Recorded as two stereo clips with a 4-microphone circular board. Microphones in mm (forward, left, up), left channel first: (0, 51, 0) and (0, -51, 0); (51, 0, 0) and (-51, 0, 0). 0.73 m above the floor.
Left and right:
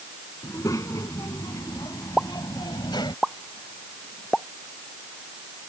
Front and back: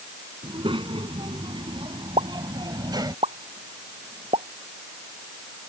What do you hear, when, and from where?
0.4 s a child speaking: 150° left; by 3.2 s 130° left
2.2 s a pop: 175° left